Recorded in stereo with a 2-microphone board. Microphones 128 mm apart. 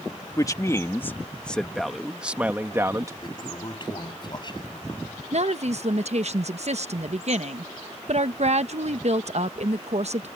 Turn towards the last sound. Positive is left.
turn(degrees=-60)  # may be behind; listen again after turning